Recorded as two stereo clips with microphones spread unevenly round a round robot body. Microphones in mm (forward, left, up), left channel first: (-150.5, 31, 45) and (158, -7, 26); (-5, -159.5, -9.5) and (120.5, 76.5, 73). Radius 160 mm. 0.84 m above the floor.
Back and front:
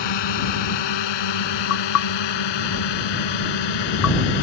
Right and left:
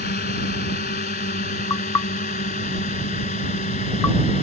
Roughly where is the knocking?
Behind right.